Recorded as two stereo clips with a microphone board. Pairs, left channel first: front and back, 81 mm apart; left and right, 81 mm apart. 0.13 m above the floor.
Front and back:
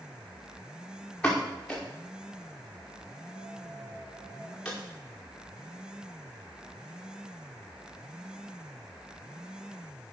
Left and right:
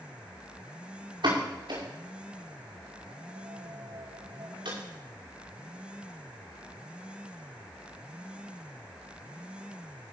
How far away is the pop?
About 4.5 m.